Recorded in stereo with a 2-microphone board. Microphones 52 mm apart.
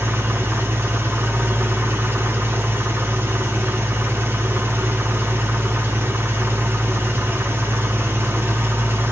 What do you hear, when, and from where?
0.0 s an engine running: 50° right (ahead or behind), 0.7 m